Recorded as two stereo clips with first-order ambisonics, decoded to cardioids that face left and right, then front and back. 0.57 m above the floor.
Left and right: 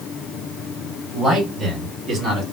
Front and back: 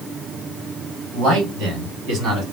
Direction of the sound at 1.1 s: 165° right.